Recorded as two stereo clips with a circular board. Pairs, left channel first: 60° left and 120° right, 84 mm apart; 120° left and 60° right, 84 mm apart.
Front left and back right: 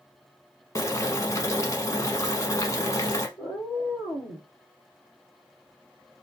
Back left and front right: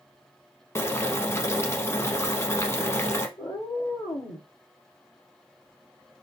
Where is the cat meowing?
100° left, 2 m.